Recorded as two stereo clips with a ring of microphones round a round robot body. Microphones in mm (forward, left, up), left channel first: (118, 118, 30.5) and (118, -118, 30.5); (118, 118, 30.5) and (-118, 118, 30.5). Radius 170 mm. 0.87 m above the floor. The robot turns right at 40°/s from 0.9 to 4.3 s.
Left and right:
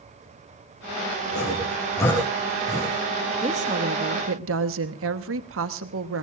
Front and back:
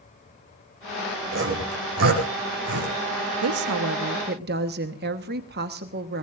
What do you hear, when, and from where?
1.3 s sawing: 145° left, 5 m; by 2.9 s 150° right, 5 m
3.4 s a woman speaking: 160° right, 1.1 m; by 6.2 s 125° right, 1.1 m